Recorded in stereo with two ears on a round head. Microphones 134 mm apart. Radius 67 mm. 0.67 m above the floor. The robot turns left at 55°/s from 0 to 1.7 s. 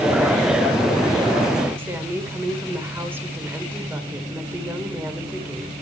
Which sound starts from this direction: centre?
A woman speaking, at 1.8 s.